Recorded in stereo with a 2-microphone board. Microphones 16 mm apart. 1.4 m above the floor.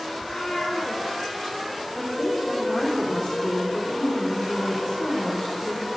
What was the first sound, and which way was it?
A cat meowing, 60° left (ahead or behind).